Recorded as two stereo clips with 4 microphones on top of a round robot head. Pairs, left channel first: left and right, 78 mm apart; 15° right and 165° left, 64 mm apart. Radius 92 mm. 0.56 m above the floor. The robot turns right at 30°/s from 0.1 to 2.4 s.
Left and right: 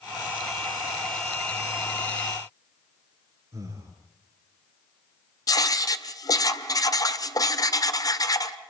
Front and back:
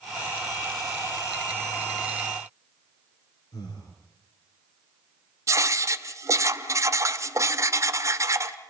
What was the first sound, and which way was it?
Breathing, 30° right.